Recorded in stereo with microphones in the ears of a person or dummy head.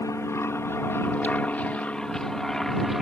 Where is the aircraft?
20° left (ahead or behind); by 3.0 s 5° left (ahead or behind).